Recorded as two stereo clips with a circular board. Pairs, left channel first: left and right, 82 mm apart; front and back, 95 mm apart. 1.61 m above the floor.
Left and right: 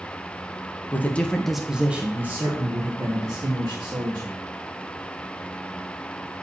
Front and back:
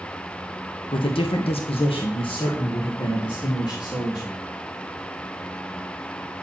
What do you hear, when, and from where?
0.9 s a man speaking: 25° left, 1.1 m; by 4.4 s 50° right, 2.5 m